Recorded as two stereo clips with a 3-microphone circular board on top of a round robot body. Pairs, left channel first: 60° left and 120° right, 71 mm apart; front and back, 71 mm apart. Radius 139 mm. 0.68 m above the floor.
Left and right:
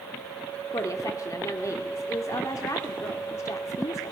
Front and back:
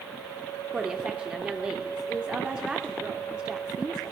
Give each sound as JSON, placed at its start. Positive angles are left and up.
{"t": 0.7, "sound": "a woman speaking", "azimuth_deg": 100, "distance_m": 2.0}